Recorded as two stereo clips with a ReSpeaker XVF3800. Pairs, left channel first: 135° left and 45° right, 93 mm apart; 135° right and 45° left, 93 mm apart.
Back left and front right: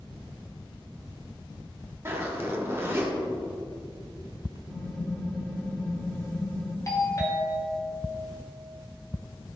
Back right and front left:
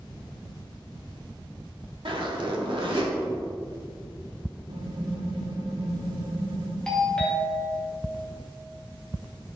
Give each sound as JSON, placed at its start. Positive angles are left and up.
{"t": 2.0, "sound": "a zipper", "azimuth_deg": 20, "distance_m": 1.6}
{"t": 4.7, "sound": "typing on a keyboard", "azimuth_deg": 60, "distance_m": 1.2}
{"t": 6.9, "sound": "a doorbell", "azimuth_deg": 145, "distance_m": 1.9}